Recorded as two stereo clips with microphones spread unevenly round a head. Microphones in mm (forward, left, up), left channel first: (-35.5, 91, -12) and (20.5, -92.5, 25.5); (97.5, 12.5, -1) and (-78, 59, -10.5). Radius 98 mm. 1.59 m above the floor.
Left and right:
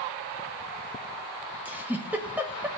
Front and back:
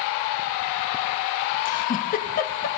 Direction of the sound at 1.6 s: 5° right.